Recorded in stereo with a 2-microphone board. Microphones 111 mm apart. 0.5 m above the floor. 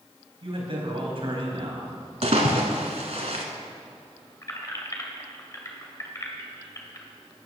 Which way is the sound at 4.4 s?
30° left (ahead or behind).